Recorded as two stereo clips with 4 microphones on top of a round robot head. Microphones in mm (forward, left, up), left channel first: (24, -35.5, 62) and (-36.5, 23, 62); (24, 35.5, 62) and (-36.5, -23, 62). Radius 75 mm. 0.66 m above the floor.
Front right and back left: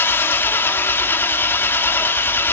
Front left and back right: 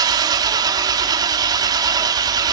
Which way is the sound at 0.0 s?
105° right.